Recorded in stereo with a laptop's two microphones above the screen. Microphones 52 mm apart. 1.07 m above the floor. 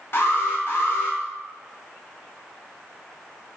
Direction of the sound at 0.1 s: 50° left (ahead or behind).